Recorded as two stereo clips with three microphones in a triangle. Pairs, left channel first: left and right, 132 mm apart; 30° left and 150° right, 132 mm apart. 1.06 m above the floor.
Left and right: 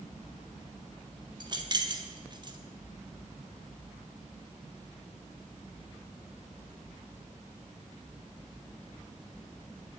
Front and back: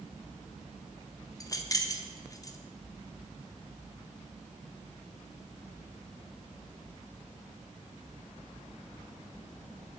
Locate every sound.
1.4 s keys jangling: 35° right, 1.4 m